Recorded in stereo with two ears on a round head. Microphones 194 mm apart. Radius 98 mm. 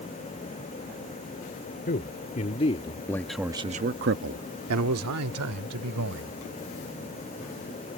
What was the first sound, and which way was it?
A man speaking, 45° left (ahead or behind).